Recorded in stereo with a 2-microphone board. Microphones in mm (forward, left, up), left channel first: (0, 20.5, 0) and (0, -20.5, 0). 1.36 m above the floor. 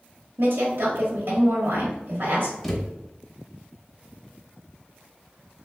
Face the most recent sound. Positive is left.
turn(degrees=0)  # may be behind; listen again after turning